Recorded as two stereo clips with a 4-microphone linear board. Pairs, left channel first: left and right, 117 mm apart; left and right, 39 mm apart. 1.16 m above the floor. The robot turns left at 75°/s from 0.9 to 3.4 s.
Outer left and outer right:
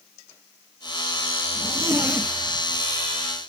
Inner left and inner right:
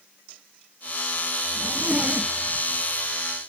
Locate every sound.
1.6 s a zipper: 50° right (ahead or behind), 1.6 m; by 2.8 s 40° left (ahead or behind), 1.6 m